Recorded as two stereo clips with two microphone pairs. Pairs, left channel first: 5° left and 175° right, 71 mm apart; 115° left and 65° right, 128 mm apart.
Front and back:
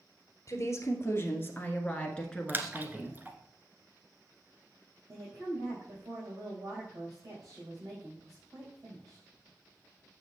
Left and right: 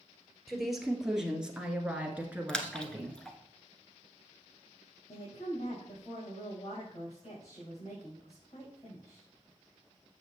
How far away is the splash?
About 0.9 m.